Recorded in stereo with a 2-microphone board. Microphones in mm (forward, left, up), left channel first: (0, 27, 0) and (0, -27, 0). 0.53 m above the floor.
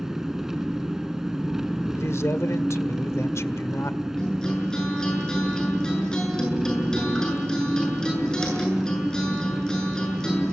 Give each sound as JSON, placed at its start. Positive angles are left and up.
{"t": 0.0, "sound": "an engine running", "side_deg": -10, "distance_m": 1.4}
{"t": 1.9, "sound": "a man speaking", "side_deg": 60, "distance_m": 1.5}
{"t": 4.2, "sound": "a guitar", "side_deg": 15, "distance_m": 8.0}